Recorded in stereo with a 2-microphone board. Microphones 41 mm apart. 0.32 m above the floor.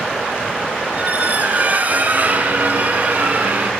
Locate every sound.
0.9 s a squeak: 40° right (ahead or behind), 2.5 m